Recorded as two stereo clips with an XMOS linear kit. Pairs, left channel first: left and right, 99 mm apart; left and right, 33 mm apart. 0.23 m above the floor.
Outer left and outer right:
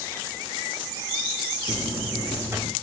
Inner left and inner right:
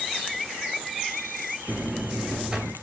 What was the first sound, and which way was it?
A buzzer, 25° right (ahead or behind).